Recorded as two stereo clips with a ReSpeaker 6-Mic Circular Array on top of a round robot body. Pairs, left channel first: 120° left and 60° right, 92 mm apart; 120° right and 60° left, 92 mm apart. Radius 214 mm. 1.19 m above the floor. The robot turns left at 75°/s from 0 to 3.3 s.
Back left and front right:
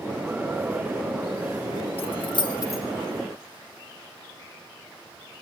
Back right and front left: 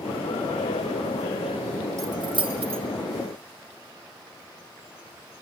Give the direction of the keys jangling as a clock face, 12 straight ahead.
8 o'clock.